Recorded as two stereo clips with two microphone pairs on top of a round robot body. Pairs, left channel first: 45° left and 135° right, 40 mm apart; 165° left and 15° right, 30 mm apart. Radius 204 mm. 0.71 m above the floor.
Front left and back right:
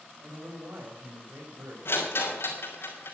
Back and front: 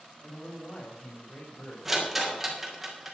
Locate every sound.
0.2 s a man speaking: 145° right, 5 m
1.9 s a rattle: 65° left, 3.5 m